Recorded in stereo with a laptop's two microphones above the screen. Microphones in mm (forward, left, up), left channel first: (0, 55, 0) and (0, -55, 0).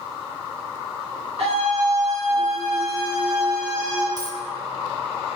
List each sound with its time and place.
1.4 s a scream: 65° right (ahead or behind), 2 m; by 4.1 s 40° right (ahead or behind), 3 m
4.2 s a dropped coin: 35° right (ahead or behind), 0.6 m